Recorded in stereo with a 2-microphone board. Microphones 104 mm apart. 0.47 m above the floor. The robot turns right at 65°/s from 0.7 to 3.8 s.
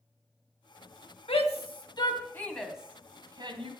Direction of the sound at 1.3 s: 75° left (ahead or behind).